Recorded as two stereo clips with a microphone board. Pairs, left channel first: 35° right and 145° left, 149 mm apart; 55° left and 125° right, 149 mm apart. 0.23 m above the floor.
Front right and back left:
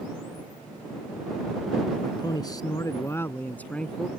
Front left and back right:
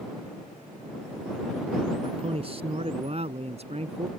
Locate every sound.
2.0 s a man speaking: 85° right; by 4.1 s 120° right